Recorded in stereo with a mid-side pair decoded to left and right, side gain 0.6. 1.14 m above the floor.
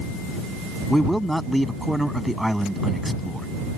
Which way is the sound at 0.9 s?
Straight ahead.